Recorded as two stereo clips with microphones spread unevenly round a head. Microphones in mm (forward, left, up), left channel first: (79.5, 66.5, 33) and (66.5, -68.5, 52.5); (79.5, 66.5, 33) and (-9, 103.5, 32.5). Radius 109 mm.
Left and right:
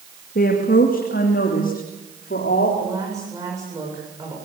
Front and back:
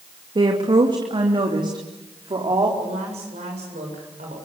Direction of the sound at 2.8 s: 170° right.